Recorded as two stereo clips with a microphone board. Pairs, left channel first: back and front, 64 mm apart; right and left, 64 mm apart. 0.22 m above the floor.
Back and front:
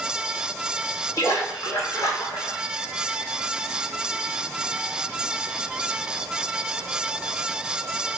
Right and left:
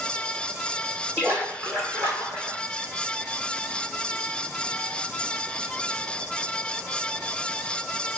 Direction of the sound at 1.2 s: 155° left.